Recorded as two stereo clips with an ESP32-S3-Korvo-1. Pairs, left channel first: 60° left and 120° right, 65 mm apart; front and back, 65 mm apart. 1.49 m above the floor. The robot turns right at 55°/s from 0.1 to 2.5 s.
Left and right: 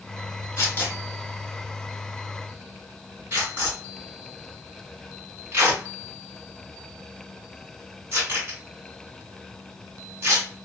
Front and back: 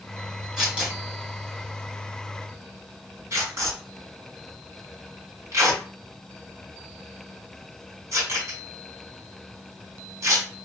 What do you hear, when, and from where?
0.6 s tearing paper: 100° left, 2.0 m; by 10.5 s 155° right, 2.0 m